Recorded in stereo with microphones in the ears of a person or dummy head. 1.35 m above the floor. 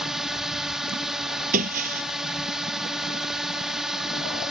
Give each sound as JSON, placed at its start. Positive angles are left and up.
{"t": 0.0, "sound": "a drone", "side_deg": -5}
{"t": 1.5, "sound": "breaking glass", "side_deg": -50}